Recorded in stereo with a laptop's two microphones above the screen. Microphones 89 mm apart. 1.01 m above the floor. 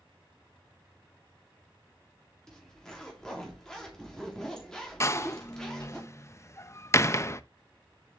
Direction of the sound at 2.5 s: 5° left (ahead or behind).